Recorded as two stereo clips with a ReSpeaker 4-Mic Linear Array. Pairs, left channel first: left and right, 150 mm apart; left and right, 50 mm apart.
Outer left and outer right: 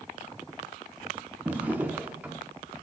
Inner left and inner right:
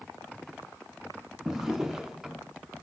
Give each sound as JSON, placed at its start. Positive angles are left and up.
{"t": 1.4, "sound": "a drawer", "side_deg": -10, "distance_m": 0.7}